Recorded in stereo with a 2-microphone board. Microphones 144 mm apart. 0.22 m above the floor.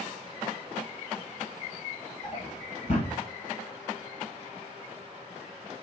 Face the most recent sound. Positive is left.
turn(degrees=45)  # may be behind; listen again after turning